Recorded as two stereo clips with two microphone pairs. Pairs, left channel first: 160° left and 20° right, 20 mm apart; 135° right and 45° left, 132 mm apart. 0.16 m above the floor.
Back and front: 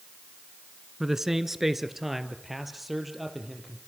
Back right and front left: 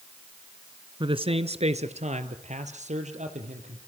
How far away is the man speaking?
About 1.3 m.